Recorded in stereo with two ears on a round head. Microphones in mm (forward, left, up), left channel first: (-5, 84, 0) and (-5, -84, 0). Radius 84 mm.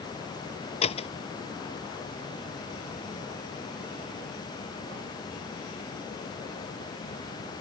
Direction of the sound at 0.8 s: 35° left (ahead or behind).